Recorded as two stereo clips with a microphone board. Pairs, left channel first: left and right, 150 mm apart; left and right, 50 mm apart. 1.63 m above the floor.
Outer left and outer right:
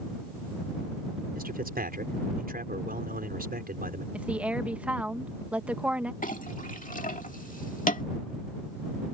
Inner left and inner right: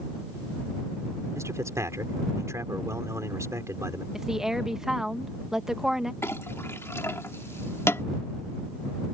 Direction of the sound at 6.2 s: 60° left (ahead or behind).